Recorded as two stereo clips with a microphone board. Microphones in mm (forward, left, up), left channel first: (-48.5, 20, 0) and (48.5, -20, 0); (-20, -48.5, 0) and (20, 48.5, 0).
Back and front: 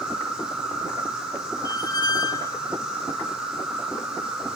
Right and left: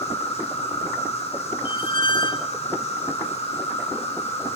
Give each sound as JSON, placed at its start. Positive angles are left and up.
{"t": 0.0, "sound": "an insect", "azimuth_deg": -105, "distance_m": 5.5}
{"t": 1.6, "sound": "a squeak", "azimuth_deg": -150, "distance_m": 1.1}